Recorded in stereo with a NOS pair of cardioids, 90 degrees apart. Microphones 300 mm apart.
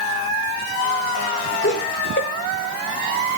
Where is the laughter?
40° left, 1.6 m.